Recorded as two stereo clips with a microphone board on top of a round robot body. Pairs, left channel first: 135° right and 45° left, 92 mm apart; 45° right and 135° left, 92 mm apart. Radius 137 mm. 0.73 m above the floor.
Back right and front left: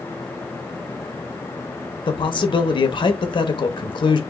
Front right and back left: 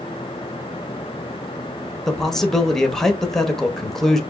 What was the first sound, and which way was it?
A man speaking, 130° right.